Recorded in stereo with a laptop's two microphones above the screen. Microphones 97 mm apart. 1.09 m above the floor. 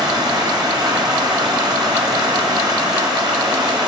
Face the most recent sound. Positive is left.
turn(degrees=-45)  # may be behind; listen again after turning